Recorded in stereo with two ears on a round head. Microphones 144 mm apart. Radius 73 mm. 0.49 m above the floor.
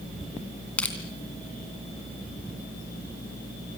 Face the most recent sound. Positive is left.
turn(degrees=10)  # may be behind; listen again after turning